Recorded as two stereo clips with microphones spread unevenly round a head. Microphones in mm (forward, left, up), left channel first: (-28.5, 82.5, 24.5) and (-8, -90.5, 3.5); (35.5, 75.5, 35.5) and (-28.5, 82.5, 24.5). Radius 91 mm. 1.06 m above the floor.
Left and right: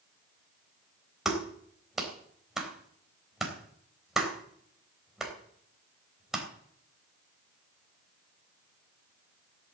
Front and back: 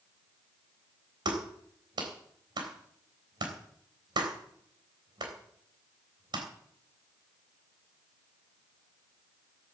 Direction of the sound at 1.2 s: 170° right.